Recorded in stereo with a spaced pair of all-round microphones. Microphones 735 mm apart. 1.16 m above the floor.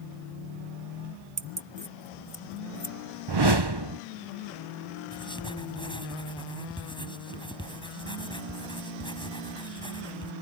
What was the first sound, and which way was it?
Keys jangling, 30° right (ahead or behind).